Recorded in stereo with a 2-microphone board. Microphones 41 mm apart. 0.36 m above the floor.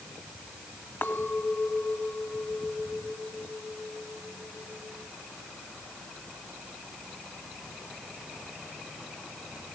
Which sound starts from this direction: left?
A clink, at 1.0 s.